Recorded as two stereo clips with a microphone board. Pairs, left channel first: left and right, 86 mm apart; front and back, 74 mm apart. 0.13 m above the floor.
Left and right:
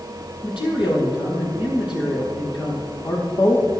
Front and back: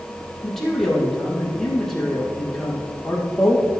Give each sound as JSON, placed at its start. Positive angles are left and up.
{"t": 0.4, "sound": "a man speaking", "azimuth_deg": 85, "distance_m": 4.5}